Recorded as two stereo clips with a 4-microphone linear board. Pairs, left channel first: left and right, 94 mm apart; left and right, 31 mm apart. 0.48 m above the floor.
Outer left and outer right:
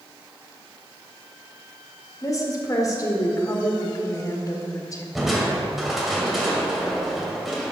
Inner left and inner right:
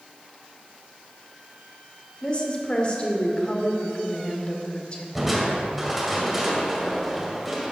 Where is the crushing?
Centre (ahead or behind), 2 m.